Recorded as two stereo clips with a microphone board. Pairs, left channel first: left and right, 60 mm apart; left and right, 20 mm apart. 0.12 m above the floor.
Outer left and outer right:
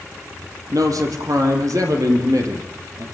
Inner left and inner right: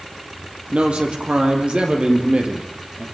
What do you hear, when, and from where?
0.7 s a man speaking: 70° right (ahead or behind), 5 m; by 3.0 s 55° right (ahead or behind), 5 m